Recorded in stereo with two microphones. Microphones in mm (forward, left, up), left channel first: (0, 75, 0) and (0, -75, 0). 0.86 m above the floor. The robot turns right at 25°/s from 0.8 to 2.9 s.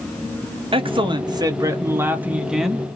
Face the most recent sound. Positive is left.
turn(degrees=5)